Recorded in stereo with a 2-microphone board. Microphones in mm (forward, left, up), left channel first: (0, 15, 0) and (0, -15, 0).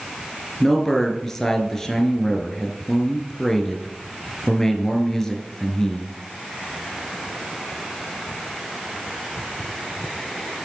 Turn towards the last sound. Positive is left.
turn(degrees=15)  # may be behind; listen again after turning